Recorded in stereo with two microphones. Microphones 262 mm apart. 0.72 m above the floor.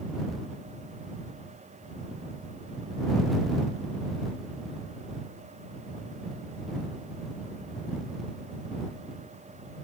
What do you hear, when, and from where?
Only background noise.